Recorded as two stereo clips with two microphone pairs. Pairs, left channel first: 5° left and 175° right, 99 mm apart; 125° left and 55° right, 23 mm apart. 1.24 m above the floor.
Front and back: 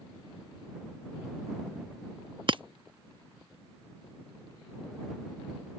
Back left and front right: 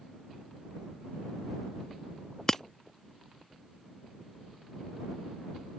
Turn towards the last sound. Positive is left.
turn(degrees=-170)